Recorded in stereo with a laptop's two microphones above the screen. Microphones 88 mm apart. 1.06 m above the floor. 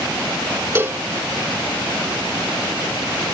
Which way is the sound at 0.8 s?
30° right (ahead or behind).